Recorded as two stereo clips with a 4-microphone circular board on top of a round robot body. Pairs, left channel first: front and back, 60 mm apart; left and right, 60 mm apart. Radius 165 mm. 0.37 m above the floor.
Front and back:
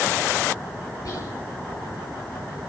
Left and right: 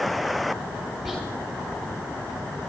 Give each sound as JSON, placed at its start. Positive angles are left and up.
{"t": 1.1, "sound": "whispering", "azimuth_deg": 5, "distance_m": 5.5}